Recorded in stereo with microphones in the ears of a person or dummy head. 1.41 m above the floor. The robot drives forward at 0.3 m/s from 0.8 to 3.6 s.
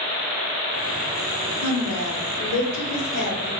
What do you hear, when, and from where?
1.6 s a woman speaking: 75° left (ahead or behind), 1.0 m; by 3.5 s 60° left (ahead or behind), 1.1 m